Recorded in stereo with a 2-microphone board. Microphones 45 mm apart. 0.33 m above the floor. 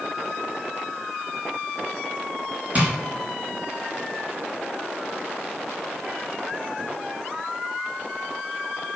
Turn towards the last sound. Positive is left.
turn(degrees=-30)  # may be behind; listen again after turning